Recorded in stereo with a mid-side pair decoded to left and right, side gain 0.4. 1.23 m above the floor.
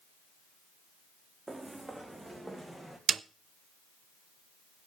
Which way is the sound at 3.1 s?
50° right.